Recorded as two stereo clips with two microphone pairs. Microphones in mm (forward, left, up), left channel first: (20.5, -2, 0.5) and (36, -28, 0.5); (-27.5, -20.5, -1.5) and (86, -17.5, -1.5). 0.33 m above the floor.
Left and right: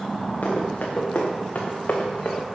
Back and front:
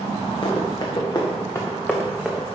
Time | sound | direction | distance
0.4 | running footsteps | 140° left | 3 m